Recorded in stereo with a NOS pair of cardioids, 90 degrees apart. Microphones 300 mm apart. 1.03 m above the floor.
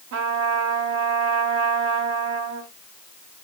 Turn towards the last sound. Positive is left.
turn(degrees=-65)